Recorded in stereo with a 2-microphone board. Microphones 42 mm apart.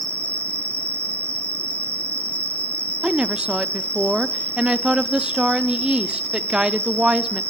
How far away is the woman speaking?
About 0.6 m.